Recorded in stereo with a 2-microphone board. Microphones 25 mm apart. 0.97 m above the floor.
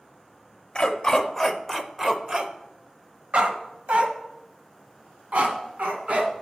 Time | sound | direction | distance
0.8 | a dog barking | 35° left (ahead or behind) | 0.9 m